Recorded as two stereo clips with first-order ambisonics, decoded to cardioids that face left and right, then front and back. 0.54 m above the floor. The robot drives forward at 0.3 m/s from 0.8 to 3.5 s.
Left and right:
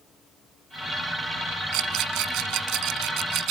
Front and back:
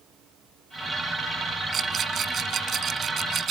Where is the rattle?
115° right; by 3.5 s 120° right.